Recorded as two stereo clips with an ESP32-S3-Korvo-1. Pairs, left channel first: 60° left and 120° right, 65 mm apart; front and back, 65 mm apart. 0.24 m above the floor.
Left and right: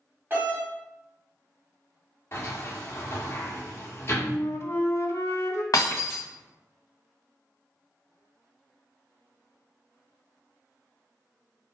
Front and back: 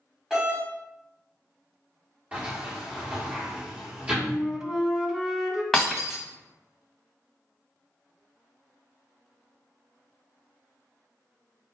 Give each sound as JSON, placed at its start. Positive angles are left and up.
{"t": 0.3, "sound": "a doorbell", "azimuth_deg": -105, "distance_m": 1.8}
{"t": 2.3, "sound": "a sliding door", "azimuth_deg": 115, "distance_m": 1.6}
{"t": 4.2, "sound": "a flute", "azimuth_deg": 100, "distance_m": 0.6}
{"t": 5.7, "sound": "breaking glass", "azimuth_deg": 90, "distance_m": 1.4}